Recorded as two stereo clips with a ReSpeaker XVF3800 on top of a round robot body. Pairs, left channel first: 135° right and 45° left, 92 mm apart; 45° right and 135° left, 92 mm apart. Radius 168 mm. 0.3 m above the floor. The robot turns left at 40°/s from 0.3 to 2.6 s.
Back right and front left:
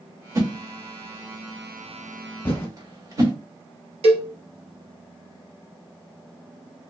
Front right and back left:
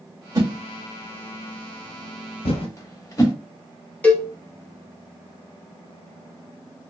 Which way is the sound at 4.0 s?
30° left.